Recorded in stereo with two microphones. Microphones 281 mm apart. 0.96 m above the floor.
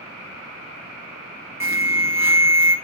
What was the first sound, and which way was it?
An alarm, 10° right (ahead or behind).